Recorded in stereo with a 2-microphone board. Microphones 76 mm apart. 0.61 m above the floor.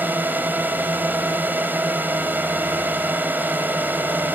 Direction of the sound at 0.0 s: 25° right (ahead or behind).